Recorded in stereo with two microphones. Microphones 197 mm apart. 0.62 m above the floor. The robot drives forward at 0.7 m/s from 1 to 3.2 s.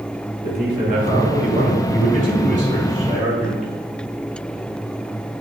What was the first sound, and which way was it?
A man speaking, 50° right (ahead or behind).